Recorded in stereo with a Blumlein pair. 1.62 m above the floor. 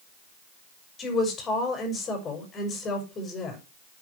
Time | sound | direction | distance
1.0 | a woman speaking | 20° left | 6 m